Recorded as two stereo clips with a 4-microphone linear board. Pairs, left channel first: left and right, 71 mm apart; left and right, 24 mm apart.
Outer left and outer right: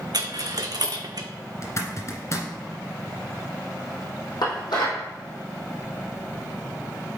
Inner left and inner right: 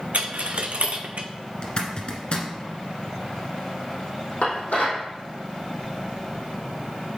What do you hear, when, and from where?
0.1 s a dropped coin: 70° right (ahead or behind), 0.8 m
1.6 s a zipper: 45° left (ahead or behind), 1.5 m
4.4 s dishes clattering: 80° left, 4 m